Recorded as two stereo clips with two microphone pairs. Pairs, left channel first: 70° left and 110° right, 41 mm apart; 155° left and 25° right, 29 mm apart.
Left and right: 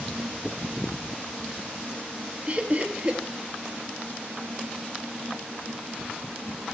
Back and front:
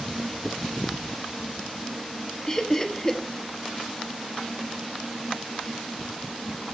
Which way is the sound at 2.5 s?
145° right.